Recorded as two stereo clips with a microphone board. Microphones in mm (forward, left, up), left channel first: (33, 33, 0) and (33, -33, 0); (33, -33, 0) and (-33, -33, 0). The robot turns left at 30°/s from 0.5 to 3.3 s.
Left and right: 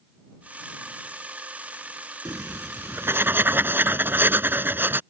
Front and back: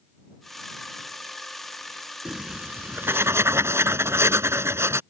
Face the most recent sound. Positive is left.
turn(degrees=-140)